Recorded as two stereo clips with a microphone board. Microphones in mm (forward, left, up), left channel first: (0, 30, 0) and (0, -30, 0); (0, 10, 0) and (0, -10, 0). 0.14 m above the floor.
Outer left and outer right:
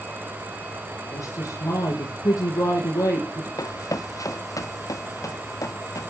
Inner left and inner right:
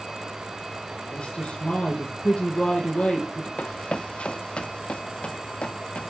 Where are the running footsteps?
65° left (ahead or behind), 0.6 m.